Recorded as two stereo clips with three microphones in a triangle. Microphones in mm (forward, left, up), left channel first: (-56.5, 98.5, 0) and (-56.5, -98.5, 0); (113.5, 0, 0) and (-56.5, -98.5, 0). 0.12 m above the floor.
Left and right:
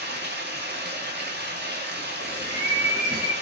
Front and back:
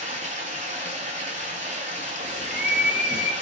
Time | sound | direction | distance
0.0 | running water | 100° right | 0.9 m
2.2 | a bird | 165° right | 1.2 m